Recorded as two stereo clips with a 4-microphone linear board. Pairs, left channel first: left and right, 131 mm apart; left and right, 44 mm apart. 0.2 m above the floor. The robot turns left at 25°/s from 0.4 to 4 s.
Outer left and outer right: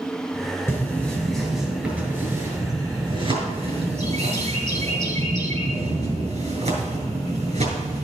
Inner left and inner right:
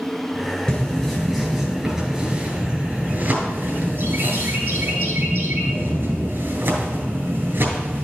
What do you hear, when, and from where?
0.7 s a bird: 20° left, 3 m; by 8.0 s 65° right, 3 m